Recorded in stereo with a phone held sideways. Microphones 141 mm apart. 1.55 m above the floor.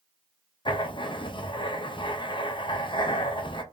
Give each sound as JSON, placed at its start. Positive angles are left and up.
{"t": 0.7, "sound": "writing", "side_deg": 35, "distance_m": 0.6}